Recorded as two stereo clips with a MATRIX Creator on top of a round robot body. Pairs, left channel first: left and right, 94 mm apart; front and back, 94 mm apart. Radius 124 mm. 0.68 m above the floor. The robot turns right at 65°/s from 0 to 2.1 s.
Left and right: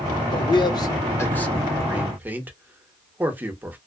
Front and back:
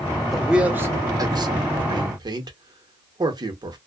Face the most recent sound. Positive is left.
turn(degrees=-155)